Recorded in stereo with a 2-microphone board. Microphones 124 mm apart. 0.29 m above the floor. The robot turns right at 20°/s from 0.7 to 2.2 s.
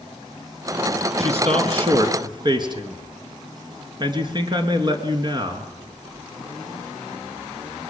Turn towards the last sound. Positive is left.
turn(degrees=-35)  # may be behind; listen again after turning